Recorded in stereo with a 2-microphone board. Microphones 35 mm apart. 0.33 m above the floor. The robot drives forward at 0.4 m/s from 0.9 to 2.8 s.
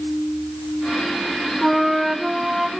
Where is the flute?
10° right (ahead or behind), 1.2 m.